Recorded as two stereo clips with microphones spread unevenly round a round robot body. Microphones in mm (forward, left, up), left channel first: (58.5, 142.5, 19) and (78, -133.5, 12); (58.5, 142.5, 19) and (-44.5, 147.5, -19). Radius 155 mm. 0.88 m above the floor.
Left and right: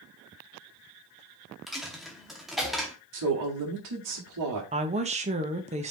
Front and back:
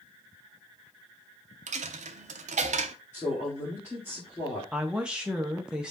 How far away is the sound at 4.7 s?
About 0.9 m.